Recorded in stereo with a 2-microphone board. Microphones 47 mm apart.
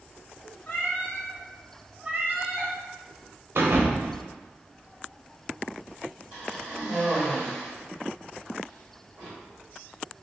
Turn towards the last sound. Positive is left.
turn(degrees=-30)  # may be behind; listen again after turning